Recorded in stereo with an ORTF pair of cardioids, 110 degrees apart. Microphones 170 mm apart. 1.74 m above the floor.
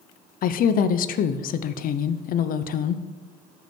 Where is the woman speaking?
60° left, 0.7 m.